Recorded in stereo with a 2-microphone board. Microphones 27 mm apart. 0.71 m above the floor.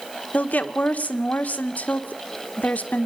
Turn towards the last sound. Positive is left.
turn(degrees=70)  # may be behind; listen again after turning